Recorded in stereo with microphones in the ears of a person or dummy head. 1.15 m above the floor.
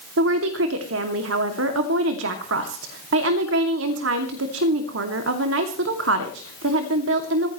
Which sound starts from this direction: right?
A woman speaking, at 0.2 s.